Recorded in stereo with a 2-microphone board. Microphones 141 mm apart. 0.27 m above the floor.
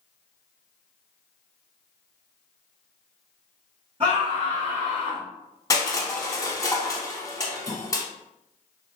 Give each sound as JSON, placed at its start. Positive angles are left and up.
{"t": 4.0, "sound": "a scream", "side_deg": -40, "distance_m": 1.6}
{"t": 5.7, "sound": "crushing", "side_deg": 25, "distance_m": 0.7}
{"t": 7.7, "sound": "a snare drum", "side_deg": -20, "distance_m": 1.8}